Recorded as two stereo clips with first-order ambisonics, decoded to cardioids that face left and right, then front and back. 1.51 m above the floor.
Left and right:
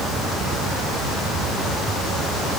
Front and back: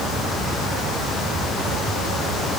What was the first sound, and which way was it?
Only background noise.